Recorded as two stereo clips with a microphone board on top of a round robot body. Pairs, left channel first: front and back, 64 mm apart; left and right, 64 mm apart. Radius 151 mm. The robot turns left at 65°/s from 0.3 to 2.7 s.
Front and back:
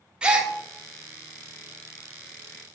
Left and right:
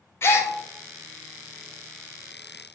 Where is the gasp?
110° left, 0.7 m; by 0.5 s 95° left, 0.7 m.